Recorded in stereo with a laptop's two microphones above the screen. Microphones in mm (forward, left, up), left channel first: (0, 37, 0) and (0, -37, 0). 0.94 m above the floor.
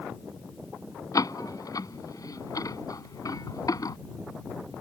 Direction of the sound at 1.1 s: 55° left (ahead or behind).